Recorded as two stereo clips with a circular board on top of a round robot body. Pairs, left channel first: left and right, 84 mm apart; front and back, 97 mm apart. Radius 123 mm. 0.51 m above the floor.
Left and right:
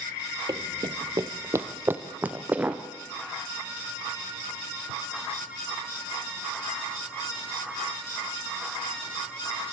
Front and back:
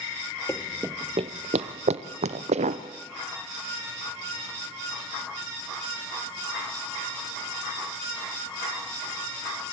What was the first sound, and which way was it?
Running footsteps, 60° right.